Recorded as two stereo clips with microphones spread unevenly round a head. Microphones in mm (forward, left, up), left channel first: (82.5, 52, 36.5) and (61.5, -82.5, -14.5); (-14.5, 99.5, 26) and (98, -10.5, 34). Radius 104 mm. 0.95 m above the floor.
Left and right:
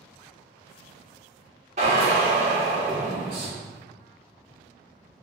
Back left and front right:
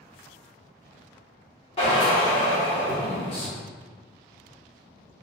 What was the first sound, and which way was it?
A drill, 160° right.